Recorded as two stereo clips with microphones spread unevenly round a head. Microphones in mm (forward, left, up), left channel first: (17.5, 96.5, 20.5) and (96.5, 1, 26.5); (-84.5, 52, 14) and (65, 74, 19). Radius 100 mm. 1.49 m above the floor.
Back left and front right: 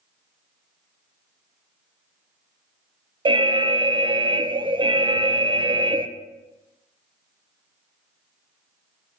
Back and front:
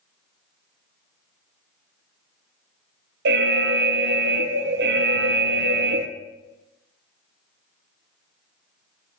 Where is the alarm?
Straight ahead, 0.7 m.